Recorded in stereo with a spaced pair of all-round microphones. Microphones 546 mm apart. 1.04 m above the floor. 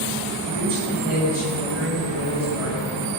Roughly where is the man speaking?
Left.